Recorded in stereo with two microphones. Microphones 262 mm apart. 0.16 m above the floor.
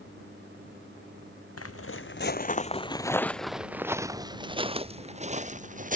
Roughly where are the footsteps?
Left.